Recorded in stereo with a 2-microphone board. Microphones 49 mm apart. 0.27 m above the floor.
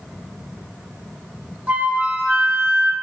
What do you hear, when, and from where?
1.7 s a flute: 30° right (ahead or behind), 1.0 m